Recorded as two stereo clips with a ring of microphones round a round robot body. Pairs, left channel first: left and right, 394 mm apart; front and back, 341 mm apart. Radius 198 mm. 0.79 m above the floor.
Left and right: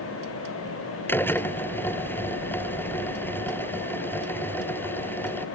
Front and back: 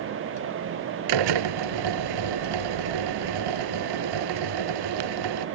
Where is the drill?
175° left.